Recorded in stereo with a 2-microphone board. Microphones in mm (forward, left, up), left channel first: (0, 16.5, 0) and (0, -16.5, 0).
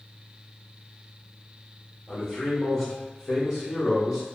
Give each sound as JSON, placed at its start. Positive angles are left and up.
{"t": 2.1, "sound": "a man speaking", "side_deg": 10, "distance_m": 0.9}